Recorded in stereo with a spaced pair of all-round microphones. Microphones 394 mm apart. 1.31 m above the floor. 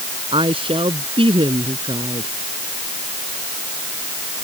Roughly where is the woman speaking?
Centre.